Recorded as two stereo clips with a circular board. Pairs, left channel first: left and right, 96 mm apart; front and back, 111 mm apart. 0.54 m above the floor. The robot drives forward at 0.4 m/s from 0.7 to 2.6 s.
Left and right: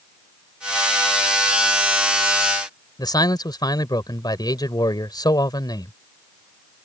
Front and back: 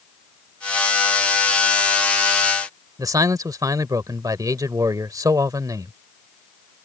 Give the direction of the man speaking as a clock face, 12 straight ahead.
8 o'clock.